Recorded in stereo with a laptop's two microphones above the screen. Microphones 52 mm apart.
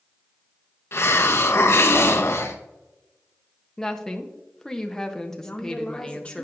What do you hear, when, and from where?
0.9 s a hiss: 55° left (ahead or behind), 0.9 m
3.8 s a woman speaking: 10° left (ahead or behind), 0.7 m
5.4 s a woman speaking: 20° left (ahead or behind), 0.8 m